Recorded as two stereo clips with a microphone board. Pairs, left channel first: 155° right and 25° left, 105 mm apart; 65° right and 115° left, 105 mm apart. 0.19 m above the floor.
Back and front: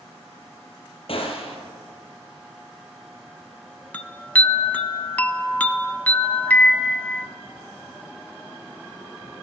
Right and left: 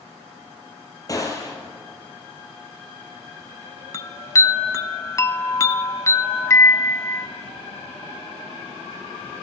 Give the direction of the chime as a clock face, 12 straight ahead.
3 o'clock.